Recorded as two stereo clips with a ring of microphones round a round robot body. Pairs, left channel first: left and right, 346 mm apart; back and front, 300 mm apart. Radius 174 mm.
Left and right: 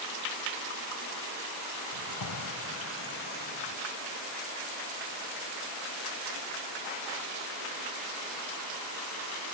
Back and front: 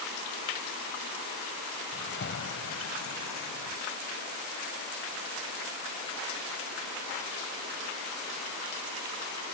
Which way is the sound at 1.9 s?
120° left.